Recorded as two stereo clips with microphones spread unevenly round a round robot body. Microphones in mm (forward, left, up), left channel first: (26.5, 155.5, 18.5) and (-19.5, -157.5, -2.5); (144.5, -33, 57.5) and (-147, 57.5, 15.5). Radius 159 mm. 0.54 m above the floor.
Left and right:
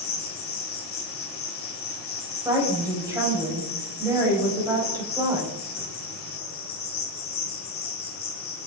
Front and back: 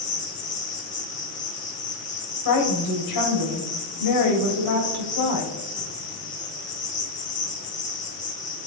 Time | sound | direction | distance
0.0 | an insect | 45° left | 1.8 m
2.5 | a woman speaking | 20° right | 3.5 m